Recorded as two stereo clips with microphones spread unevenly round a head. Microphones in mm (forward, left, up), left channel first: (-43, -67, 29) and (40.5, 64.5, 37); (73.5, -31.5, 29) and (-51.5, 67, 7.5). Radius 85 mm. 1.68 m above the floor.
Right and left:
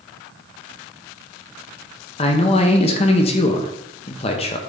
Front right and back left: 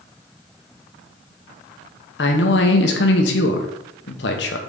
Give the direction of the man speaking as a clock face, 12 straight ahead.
2 o'clock.